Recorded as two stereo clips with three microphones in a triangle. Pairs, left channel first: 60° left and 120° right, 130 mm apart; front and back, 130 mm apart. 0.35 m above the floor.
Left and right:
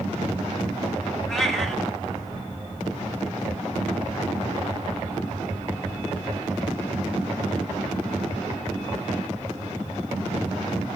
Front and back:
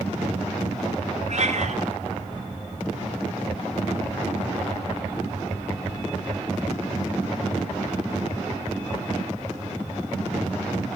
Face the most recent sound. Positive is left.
turn(degrees=145)